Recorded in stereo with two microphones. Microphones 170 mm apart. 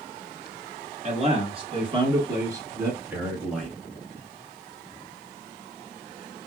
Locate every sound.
1.0 s a man speaking: 40° right (ahead or behind), 1.9 m; by 3.8 s centre (ahead or behind), 1.5 m